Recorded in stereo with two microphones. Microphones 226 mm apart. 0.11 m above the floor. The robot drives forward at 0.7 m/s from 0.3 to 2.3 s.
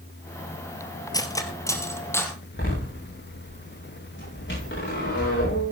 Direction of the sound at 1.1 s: 15° left (ahead or behind).